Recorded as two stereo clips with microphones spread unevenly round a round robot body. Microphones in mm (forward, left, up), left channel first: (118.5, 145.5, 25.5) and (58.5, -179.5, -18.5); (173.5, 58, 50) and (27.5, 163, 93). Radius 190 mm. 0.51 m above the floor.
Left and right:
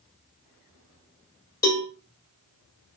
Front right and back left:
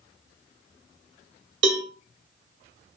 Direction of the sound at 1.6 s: 165° left.